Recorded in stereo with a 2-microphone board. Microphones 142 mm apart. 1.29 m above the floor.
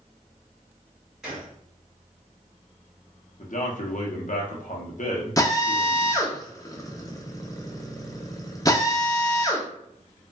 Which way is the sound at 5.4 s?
25° left (ahead or behind).